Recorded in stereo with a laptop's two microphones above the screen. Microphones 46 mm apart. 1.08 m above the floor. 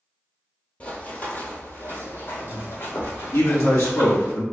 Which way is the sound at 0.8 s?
30° left (ahead or behind).